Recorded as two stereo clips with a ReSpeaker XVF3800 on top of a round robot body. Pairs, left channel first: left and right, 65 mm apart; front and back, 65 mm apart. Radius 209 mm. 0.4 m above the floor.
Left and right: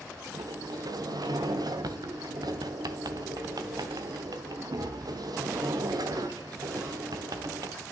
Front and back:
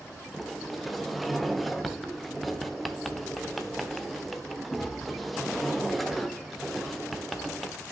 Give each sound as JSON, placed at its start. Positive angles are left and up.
{"t": 0.3, "sound": "a sliding door", "azimuth_deg": -90, "distance_m": 1.2}